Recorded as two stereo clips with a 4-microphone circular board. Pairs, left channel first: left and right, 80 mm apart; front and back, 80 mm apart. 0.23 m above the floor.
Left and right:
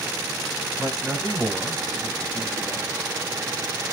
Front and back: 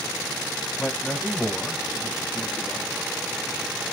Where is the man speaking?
80° right, 1.3 m; by 3.1 s 55° left, 1.6 m.